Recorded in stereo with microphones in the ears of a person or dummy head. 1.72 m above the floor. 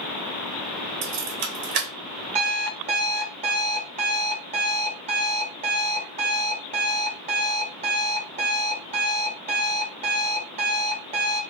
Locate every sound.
1.0 s keys jangling: 45° right (ahead or behind), 0.8 m
2.4 s an alarm clock: 40° right (ahead or behind), 1.2 m